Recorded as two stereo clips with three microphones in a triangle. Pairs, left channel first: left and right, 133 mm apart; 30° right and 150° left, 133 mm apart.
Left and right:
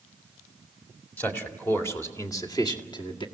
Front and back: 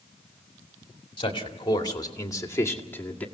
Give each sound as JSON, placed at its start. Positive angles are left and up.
{"t": 1.2, "sound": "a man speaking", "azimuth_deg": 15, "distance_m": 2.5}